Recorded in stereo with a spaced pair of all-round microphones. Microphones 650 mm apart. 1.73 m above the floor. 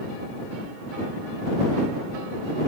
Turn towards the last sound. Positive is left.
No sound to turn to.